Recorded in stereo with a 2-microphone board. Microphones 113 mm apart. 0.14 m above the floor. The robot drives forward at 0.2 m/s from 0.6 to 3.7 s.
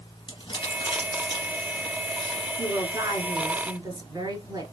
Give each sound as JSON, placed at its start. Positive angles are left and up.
{"t": 0.3, "sound": "crumpling", "side_deg": 45, "distance_m": 1.7}
{"t": 2.6, "sound": "a woman speaking", "side_deg": -35, "distance_m": 1.2}